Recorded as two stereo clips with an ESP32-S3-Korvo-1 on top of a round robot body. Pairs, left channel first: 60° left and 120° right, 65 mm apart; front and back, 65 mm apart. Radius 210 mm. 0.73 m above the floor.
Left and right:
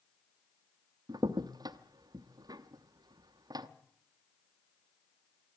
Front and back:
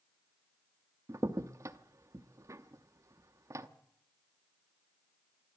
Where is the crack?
140° right, 0.8 m.